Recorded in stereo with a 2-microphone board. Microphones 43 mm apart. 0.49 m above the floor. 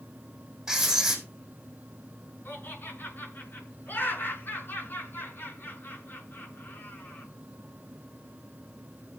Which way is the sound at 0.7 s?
5° right (ahead or behind).